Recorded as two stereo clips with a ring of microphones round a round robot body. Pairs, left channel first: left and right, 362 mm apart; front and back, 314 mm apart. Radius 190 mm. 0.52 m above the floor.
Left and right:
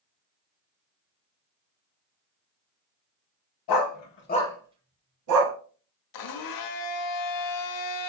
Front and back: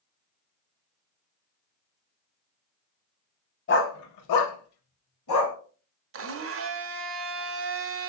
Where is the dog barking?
55° left, 1.1 m; by 5.5 s 55° right, 1.3 m.